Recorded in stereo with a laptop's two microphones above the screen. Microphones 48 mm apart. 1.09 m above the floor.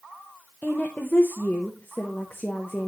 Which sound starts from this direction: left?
A woman speaking, at 0.6 s.